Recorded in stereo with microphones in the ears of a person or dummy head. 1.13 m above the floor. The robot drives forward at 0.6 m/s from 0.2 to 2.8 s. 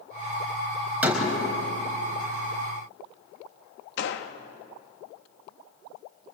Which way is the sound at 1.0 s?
10° right (ahead or behind).